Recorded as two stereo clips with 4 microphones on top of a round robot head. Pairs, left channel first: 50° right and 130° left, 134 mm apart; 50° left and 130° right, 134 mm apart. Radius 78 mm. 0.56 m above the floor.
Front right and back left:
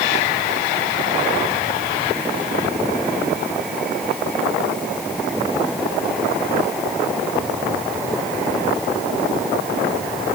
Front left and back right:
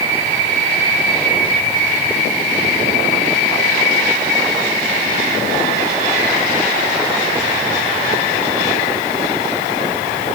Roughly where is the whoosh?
I don't hear a whoosh.